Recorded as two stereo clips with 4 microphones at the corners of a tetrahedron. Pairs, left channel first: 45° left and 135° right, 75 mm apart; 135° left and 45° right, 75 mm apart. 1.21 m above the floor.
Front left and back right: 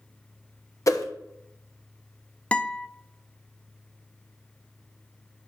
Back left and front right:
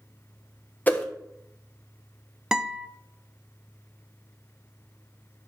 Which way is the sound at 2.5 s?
20° left.